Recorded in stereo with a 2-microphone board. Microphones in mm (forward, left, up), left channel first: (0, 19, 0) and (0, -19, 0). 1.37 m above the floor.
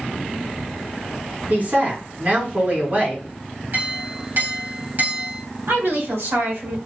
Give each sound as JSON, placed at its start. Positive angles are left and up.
{"t": 1.5, "sound": "a woman speaking", "side_deg": -45, "distance_m": 2.0}
{"t": 3.7, "sound": "a clink", "side_deg": -55, "distance_m": 2.0}
{"t": 5.7, "sound": "a woman speaking", "side_deg": -80, "distance_m": 1.8}